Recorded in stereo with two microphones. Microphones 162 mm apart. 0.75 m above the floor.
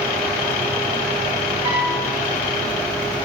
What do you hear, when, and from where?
1.6 s a piano: 35° right (ahead or behind), 1.1 m